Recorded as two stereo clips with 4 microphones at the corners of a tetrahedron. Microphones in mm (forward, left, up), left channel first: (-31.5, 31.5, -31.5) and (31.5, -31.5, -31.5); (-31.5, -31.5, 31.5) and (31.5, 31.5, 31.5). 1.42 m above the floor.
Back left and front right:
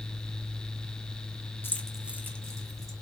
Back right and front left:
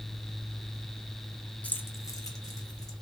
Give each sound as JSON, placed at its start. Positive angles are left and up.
{"t": 1.6, "sound": "keys jangling", "azimuth_deg": 170, "distance_m": 0.6}